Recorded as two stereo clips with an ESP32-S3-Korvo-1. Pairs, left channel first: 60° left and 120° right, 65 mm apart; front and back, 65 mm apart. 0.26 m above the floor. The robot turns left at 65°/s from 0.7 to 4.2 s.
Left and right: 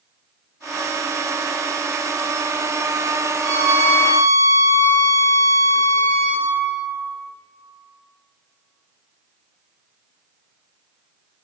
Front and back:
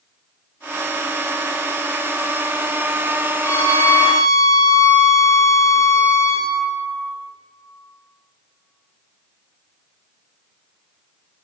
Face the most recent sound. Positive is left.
turn(degrees=-90)